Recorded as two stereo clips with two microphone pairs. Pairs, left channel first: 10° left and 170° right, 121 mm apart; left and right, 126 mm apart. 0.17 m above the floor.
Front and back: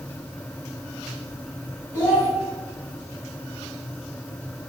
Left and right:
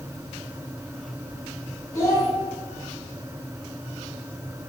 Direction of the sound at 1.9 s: 50° left.